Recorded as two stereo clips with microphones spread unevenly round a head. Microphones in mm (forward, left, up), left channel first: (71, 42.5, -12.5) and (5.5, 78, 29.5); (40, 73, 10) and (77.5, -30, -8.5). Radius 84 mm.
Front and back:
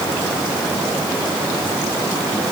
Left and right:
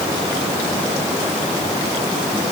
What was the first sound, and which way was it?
Only background noise.